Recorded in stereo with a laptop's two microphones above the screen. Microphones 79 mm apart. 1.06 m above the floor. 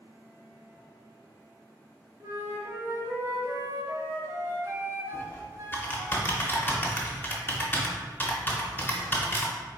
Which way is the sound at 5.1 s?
25° left (ahead or behind).